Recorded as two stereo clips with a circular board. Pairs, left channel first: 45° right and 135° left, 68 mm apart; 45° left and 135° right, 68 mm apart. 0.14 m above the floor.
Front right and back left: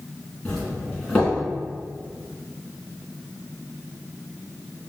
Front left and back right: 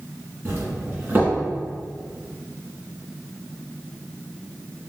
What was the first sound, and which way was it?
A doorbell, 105° right.